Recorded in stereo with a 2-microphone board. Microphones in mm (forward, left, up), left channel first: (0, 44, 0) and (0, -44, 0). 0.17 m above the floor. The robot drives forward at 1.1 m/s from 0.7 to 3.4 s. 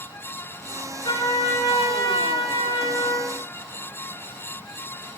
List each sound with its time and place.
1.1 s a trumpet: 60° left (ahead or behind), 8.5 m; by 3.4 s 80° left, 7.5 m